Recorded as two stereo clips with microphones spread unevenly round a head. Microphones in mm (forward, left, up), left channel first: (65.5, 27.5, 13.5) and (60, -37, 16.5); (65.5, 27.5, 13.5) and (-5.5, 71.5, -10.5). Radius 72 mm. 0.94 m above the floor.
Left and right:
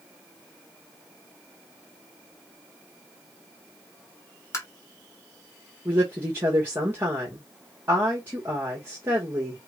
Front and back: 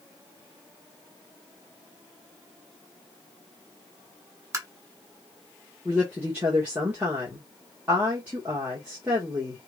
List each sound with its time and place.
4.5 s tapping: 120° left, 1.5 m
5.8 s a woman speaking: 155° right, 1.2 m